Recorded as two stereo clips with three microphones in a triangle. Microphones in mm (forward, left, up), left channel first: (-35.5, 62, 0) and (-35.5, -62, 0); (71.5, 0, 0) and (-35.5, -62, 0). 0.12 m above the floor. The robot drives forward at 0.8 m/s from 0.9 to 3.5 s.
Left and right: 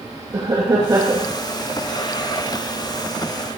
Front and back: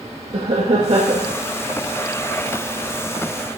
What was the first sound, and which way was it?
Laughter, 140° right.